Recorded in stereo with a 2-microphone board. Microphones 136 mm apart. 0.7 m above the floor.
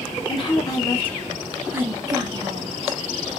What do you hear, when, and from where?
0.3 s a woman speaking: 40° left (ahead or behind), 0.9 m; by 3.0 s 45° right (ahead or behind), 1.2 m